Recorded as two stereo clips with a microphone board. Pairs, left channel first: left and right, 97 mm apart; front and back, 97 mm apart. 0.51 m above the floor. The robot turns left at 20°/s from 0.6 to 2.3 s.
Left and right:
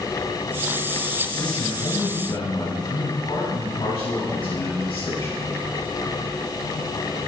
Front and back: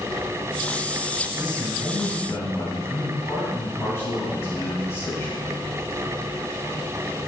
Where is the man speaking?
75° left, 4.5 m; by 5.5 s 55° left, 4.5 m.